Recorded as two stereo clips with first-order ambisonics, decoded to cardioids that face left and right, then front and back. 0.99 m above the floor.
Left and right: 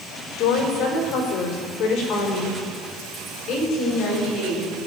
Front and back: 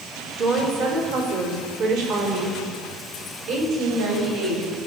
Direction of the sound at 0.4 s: 135° left.